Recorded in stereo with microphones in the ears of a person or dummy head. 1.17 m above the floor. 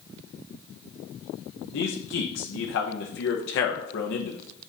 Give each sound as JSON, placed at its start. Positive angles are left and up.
{"t": 1.7, "sound": "a man speaking", "side_deg": 65, "distance_m": 1.0}